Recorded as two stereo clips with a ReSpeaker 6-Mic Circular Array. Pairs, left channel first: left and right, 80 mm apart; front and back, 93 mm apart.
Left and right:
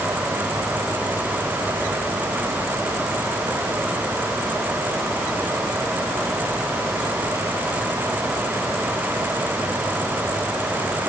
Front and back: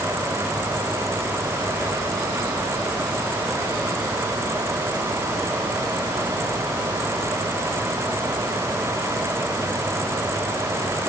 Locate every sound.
Only background noise.